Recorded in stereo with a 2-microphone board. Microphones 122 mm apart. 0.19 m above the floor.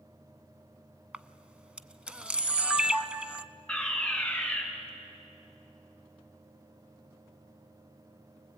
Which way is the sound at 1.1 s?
10° right (ahead or behind).